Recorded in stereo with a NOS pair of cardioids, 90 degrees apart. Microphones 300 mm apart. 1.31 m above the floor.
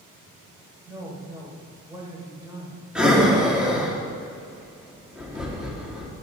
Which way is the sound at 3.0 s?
5° right.